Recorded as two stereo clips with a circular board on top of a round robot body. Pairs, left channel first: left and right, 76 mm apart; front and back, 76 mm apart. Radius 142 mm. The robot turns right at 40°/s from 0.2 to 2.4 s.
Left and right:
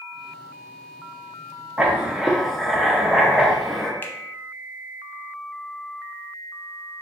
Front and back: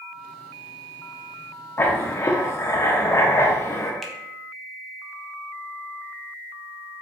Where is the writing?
30° right, 0.8 m; by 3.9 s straight ahead, 0.8 m.